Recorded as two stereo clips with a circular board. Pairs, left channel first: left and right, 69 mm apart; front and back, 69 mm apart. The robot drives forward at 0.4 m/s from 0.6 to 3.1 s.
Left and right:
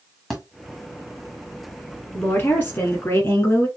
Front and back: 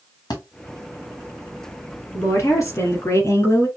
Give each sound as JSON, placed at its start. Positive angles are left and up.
{"t": 0.3, "sound": "a thud", "azimuth_deg": 5, "distance_m": 1.7}
{"t": 2.1, "sound": "a woman speaking", "azimuth_deg": 40, "distance_m": 3.0}